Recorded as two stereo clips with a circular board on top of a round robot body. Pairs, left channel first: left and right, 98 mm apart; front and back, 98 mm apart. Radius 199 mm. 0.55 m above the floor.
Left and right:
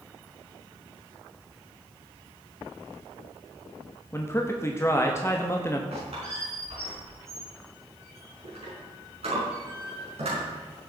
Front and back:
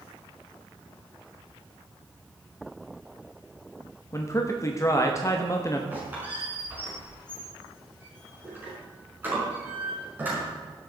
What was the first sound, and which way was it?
A man speaking, 40° left.